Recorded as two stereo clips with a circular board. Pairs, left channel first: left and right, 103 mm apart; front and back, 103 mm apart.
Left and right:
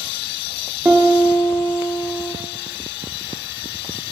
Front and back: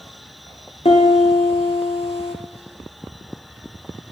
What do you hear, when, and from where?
0.8 s a piano: 15° right, 1.0 m